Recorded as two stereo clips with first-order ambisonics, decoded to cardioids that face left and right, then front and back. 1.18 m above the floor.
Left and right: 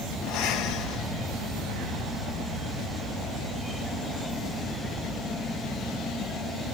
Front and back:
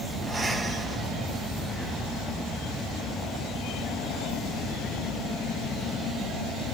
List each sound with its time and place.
0.2 s breathing: 100° left, 1.1 m